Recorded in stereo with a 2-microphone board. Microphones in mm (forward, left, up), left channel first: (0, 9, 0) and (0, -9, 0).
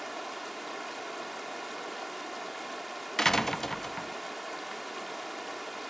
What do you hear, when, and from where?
0.0 s running water: centre (ahead or behind), 1.0 m
3.2 s a door slam: 20° left (ahead or behind), 0.5 m